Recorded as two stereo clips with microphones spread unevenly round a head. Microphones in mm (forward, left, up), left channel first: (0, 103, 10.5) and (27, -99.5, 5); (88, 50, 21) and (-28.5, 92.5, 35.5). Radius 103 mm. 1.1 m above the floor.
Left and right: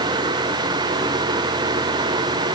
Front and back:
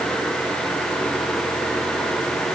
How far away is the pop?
I don't hear a pop.